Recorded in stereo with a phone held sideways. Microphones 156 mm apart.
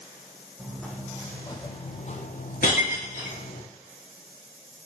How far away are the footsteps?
About 2.5 m.